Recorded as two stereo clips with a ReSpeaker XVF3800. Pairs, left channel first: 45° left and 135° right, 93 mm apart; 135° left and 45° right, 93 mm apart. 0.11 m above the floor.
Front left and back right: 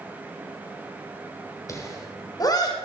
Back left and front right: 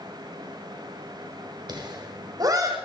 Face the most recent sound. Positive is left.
turn(degrees=5)